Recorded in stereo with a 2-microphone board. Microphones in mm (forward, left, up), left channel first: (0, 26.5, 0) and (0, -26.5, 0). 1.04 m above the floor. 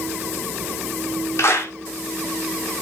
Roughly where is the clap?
Left.